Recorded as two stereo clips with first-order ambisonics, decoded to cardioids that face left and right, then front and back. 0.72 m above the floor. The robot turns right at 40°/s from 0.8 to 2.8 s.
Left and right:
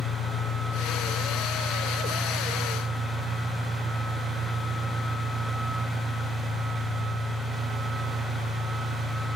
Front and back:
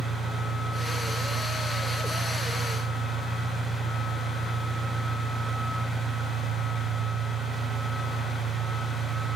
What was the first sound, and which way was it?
An engine running, 160° left.